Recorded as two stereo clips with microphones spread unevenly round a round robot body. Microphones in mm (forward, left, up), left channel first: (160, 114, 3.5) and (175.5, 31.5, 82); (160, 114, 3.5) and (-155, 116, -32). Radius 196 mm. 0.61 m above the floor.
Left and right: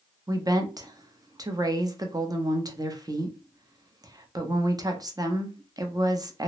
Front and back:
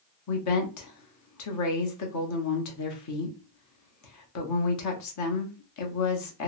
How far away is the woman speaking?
About 0.8 m.